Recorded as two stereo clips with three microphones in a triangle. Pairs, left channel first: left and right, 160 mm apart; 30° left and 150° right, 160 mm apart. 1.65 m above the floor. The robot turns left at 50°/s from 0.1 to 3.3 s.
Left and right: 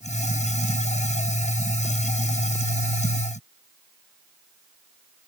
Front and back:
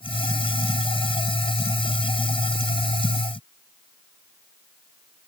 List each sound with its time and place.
Only background noise.